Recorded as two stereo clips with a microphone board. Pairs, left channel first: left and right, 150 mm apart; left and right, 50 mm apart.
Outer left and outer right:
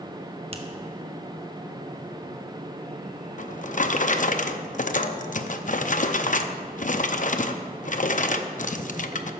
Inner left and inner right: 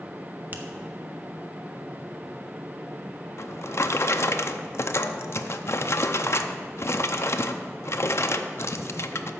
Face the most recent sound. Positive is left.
turn(degrees=55)  # may be behind; listen again after turning